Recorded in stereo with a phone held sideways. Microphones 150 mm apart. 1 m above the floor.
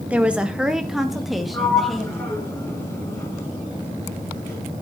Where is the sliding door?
20° left (ahead or behind), 5.5 m.